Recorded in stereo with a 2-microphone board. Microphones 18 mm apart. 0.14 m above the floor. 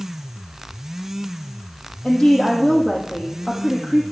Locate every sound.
2.0 s a woman speaking: 55° left (ahead or behind), 5.5 m